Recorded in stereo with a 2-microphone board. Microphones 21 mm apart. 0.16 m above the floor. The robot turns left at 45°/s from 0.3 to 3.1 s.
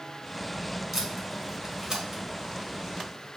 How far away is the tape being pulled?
About 1.5 m.